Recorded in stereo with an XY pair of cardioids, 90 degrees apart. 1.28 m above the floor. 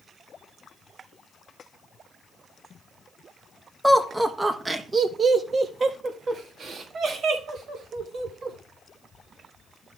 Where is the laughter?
5° right, 1.3 m; by 8.6 s 75° right, 3 m.